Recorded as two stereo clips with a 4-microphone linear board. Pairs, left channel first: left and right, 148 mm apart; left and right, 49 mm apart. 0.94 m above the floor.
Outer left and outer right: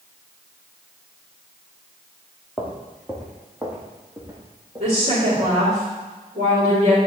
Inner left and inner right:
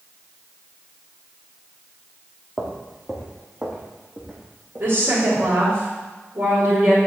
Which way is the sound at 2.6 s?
10° left (ahead or behind).